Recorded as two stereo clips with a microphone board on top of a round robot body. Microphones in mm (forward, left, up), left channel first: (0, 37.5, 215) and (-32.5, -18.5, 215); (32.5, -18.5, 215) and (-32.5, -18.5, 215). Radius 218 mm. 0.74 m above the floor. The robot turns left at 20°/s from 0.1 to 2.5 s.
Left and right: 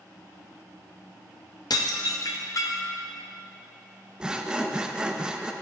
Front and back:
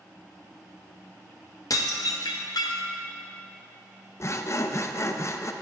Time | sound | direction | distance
1.7 | dishes clattering | 40° left | 0.6 m
4.2 | sawing | 45° right | 0.7 m